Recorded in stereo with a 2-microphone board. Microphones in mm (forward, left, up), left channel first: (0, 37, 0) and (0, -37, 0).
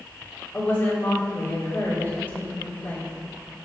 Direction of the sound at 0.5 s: 20° left (ahead or behind).